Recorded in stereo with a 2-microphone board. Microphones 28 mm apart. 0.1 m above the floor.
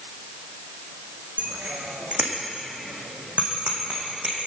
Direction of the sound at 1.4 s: 60° right (ahead or behind).